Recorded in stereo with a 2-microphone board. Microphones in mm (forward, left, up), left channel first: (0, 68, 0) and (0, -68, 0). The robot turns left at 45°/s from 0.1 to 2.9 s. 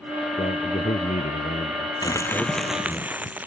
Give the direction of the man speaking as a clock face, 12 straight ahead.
8 o'clock.